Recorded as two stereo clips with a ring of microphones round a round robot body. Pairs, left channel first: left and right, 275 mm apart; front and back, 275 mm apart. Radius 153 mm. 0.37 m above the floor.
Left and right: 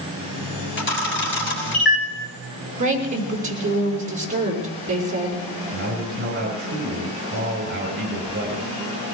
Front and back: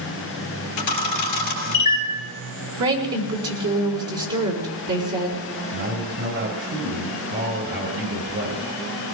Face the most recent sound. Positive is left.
turn(degrees=-140)